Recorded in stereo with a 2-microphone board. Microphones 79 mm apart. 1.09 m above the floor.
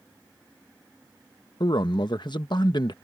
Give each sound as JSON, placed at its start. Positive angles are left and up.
{"t": 1.6, "sound": "a man speaking", "side_deg": 65}